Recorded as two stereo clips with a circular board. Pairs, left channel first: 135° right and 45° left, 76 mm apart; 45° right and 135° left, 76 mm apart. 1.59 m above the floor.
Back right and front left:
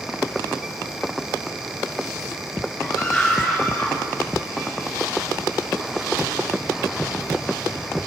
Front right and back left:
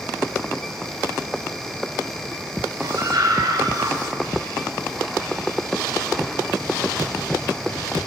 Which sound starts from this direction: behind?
A scream, at 2.8 s.